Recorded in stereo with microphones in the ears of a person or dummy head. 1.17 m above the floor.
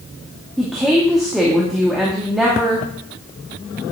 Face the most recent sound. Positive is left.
turn(degrees=0)  # may be behind; listen again after turning